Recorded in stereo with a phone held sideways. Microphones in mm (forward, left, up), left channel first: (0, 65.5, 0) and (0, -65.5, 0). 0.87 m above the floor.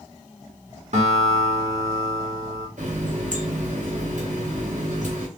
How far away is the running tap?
About 2 m.